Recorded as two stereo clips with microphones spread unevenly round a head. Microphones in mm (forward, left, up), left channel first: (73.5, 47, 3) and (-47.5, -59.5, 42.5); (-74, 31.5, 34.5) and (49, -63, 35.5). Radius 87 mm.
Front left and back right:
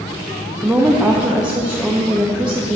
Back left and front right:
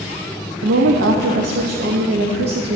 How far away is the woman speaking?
About 0.5 m.